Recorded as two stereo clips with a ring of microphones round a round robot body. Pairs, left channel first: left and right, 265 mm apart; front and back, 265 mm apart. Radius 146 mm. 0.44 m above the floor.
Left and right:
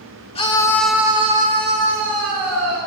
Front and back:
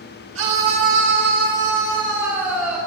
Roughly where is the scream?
Behind left.